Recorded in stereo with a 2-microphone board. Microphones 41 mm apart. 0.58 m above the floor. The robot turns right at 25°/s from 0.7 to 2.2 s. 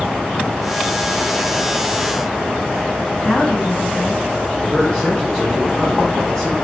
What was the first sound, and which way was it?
A woman speaking, 25° left (ahead or behind).